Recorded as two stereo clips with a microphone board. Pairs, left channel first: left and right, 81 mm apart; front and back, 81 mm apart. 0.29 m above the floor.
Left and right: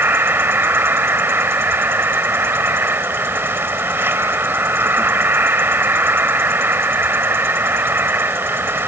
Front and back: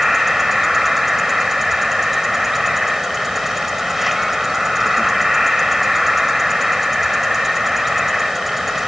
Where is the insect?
95° right.